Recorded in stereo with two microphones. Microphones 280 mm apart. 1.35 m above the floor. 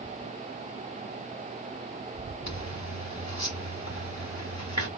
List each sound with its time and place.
2.5 s a zipper: 70° left (ahead or behind), 1.8 m